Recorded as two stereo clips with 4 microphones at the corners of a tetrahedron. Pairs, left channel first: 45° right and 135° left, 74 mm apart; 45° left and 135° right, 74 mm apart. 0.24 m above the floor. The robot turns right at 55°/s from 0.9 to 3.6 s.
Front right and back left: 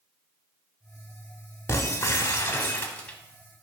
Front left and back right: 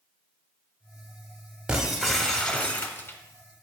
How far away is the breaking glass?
About 0.5 m.